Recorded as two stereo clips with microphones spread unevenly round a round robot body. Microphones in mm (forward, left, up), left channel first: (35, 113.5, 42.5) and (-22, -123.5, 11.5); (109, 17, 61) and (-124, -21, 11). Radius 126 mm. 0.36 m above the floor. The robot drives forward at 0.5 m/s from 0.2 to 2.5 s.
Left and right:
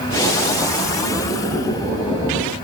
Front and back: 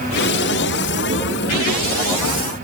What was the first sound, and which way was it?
Only background noise.